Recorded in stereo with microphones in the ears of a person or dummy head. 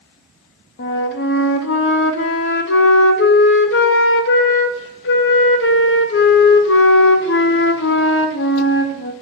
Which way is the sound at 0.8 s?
60° left (ahead or behind).